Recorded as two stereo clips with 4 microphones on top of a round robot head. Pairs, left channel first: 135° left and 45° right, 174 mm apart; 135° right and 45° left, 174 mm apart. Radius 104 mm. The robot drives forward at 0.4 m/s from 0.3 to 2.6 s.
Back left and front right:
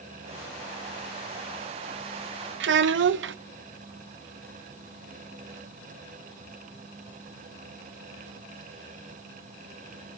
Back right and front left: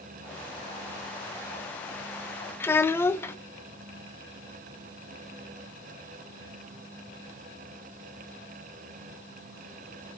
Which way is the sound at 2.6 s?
55° right.